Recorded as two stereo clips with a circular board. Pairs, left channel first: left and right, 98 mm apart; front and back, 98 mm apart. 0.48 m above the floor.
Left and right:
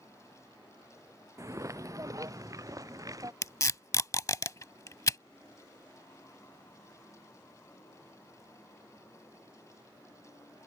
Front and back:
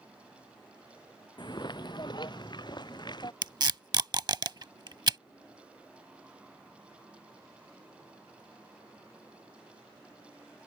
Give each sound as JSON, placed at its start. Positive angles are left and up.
{"t": 1.4, "sound": "footsteps", "azimuth_deg": -35}
{"t": 3.4, "sound": "tape being pulled", "azimuth_deg": 145}